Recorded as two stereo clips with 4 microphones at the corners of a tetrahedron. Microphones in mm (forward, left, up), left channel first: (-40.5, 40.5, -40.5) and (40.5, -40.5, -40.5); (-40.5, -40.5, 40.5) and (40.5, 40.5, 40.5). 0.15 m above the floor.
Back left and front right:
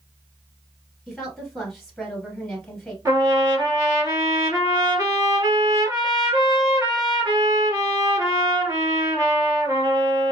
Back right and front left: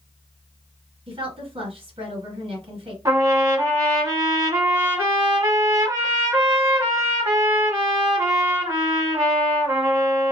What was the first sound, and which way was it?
A woman speaking, 50° left.